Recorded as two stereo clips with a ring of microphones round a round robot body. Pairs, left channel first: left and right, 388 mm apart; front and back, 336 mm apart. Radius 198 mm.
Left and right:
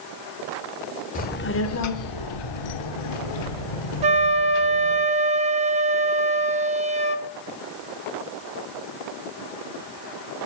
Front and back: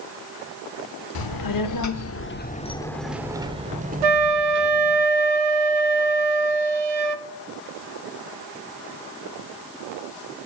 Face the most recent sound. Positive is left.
turn(degrees=-165)